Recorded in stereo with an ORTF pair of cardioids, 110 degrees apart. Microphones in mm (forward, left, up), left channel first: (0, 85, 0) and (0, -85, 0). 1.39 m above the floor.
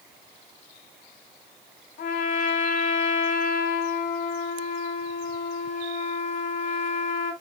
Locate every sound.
2.0 s a trumpet: 70° left, 4 m